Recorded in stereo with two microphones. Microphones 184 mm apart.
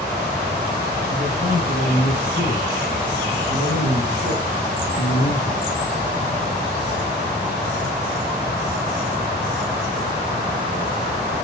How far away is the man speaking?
About 4 m.